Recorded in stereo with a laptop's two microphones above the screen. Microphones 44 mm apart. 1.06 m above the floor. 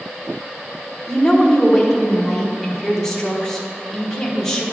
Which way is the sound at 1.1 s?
10° left (ahead or behind).